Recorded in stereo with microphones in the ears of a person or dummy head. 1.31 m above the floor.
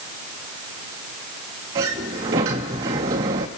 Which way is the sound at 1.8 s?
20° right (ahead or behind).